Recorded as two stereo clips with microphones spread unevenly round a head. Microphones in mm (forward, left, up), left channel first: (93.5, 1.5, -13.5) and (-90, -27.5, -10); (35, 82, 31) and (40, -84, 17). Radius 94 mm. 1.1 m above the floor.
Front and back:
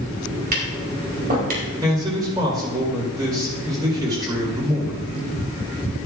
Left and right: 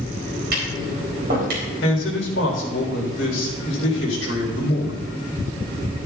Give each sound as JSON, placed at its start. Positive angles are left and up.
{"t": 0.5, "sound": "tapping", "azimuth_deg": -130, "distance_m": 3.5}
{"t": 1.8, "sound": "a man speaking", "azimuth_deg": 120, "distance_m": 4.0}